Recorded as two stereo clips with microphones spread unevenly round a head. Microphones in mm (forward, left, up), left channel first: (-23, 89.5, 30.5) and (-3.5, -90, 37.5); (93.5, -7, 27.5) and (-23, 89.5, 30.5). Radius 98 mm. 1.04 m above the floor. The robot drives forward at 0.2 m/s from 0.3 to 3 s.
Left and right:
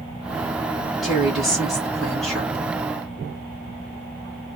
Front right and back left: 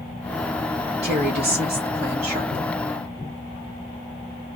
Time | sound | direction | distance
1.0 | a woman speaking | 175° right | 1.2 m